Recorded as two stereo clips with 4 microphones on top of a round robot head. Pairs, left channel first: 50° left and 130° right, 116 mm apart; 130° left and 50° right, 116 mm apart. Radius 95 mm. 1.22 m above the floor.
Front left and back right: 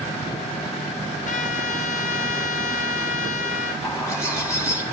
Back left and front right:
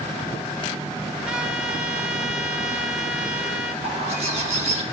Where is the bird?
15° right, 3.5 m.